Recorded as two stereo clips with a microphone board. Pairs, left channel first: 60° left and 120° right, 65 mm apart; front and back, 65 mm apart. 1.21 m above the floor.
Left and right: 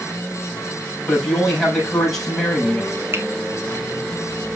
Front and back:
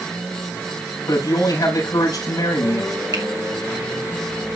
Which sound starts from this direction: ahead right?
A man speaking, at 1.1 s.